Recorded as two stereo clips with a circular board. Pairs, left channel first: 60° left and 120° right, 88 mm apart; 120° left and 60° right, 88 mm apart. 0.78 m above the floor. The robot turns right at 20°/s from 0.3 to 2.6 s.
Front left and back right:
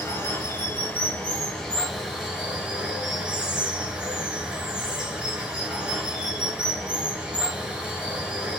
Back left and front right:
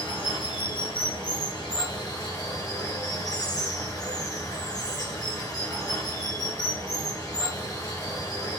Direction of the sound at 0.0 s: 120° left.